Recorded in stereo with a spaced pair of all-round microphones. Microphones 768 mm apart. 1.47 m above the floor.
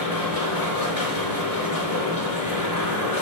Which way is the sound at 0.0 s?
25° left (ahead or behind).